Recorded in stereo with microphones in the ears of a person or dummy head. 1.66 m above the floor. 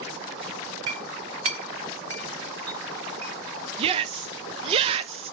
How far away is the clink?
About 0.8 m.